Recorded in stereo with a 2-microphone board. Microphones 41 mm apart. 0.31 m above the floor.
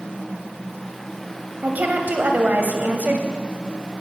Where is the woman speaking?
45° right (ahead or behind), 1.3 m.